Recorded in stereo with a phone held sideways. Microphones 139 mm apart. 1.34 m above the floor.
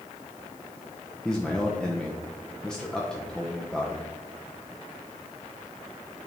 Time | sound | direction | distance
1.2 | a man speaking | 5° left (ahead or behind) | 0.9 m